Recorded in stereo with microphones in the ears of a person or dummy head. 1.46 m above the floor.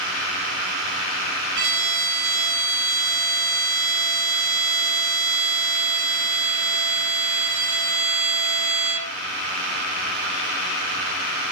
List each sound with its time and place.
1.6 s a violin: 65° right (ahead or behind), 3 m